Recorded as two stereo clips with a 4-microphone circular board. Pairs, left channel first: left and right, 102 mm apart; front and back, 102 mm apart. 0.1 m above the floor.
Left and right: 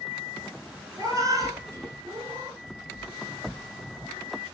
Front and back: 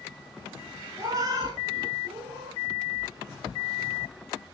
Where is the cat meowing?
135° right, 1.0 m; by 2.6 s 150° right, 1.9 m.